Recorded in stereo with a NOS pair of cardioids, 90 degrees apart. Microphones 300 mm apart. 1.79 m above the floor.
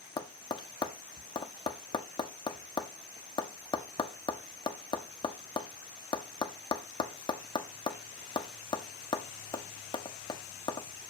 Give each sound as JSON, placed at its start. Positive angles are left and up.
{"t": 0.2, "sound": "tapping", "azimuth_deg": 15, "distance_m": 0.7}